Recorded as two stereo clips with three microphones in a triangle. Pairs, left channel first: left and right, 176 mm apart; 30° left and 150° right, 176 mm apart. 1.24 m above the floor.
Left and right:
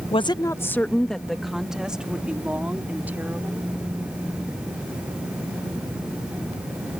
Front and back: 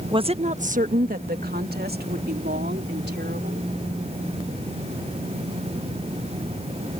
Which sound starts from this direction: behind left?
A woman speaking, at 0.1 s.